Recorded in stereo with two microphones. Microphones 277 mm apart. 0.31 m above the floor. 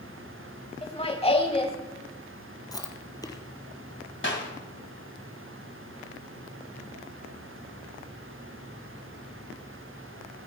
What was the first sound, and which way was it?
Laughter, 20° left (ahead or behind).